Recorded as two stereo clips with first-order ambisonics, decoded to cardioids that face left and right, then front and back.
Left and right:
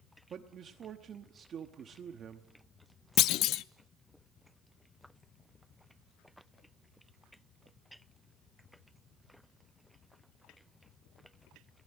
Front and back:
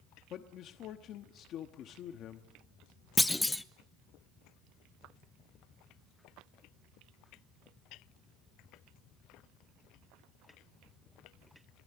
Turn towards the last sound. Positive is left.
turn(degrees=85)